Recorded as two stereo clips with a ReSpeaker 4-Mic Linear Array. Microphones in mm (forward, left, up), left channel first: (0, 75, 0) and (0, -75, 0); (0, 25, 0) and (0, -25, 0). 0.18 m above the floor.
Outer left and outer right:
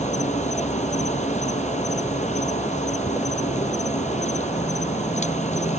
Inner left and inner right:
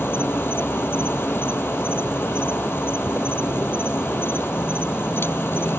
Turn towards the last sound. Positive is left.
turn(degrees=50)  # may be behind; listen again after turning